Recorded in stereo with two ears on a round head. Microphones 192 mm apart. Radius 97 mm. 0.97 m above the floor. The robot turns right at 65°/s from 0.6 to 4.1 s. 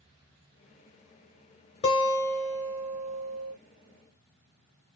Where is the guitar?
145° left, 0.8 m; by 3.5 s 105° right, 0.8 m.